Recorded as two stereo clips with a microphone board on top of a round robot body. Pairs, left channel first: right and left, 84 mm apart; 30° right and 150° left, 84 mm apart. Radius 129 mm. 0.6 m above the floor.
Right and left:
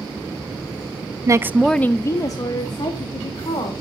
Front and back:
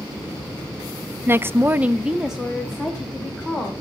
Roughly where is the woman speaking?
Left.